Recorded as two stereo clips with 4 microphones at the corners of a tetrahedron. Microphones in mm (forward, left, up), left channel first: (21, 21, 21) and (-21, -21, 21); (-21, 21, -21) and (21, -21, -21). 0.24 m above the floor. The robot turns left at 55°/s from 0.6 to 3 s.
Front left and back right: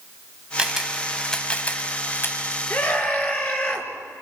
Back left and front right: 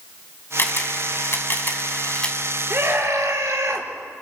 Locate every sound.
0.6 s a camera shutter: 160° left, 2 m; by 2.4 s 65° left, 2 m
2.7 s a scream: 5° left, 4 m; by 3.9 s 10° right, 4 m